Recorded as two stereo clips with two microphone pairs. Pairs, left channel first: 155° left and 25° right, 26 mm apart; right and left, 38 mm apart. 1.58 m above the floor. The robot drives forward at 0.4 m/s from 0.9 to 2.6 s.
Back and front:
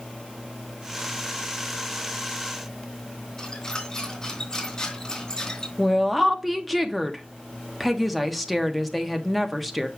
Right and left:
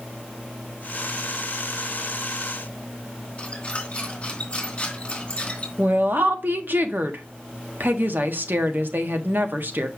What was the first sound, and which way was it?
A squeak, 150° right.